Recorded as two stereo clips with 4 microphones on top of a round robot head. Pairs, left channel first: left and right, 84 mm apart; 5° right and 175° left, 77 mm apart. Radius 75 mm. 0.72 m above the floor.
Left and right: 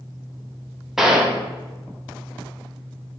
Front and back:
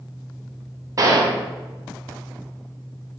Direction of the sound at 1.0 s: 175° right.